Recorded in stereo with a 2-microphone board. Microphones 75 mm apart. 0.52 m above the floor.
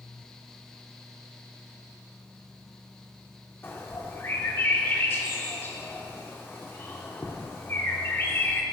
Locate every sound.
3.6 s a bird: 30° left (ahead or behind), 1.4 m